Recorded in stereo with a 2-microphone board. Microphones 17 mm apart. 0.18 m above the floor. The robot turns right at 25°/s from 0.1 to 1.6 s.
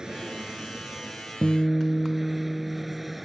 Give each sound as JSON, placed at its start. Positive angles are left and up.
{"t": 0.0, "sound": "an aircraft", "azimuth_deg": -50}
{"t": 1.4, "sound": "a guitar", "side_deg": 15}